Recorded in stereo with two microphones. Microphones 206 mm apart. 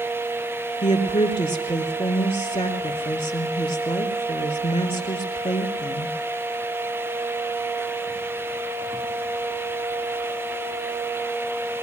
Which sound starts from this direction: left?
A woman speaking, at 0.8 s.